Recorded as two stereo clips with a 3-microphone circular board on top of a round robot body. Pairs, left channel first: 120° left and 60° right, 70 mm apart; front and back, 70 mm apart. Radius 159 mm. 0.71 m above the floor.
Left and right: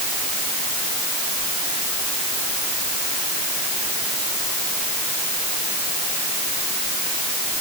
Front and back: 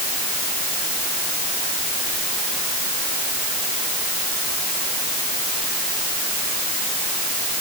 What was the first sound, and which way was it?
Only background noise.